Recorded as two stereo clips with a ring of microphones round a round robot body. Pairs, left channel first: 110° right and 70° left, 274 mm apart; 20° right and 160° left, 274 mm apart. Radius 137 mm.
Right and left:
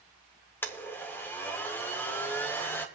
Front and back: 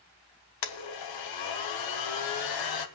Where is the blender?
30° right, 1.1 m.